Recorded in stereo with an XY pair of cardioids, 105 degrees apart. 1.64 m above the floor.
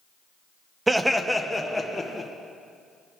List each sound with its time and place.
0.9 s laughter: 20° right, 0.8 m; by 2.3 s 15° left, 1.7 m